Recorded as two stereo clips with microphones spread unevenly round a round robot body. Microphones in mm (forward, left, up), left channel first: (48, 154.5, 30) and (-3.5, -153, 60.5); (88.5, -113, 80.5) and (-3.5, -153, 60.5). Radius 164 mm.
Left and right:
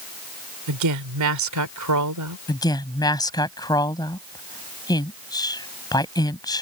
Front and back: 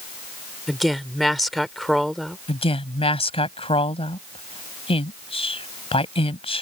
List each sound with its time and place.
0.7 s a woman speaking: 65° right
2.5 s a woman speaking: straight ahead